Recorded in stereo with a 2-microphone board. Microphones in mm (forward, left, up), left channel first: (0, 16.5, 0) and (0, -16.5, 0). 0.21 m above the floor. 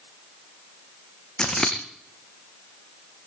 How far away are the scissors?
About 3 m.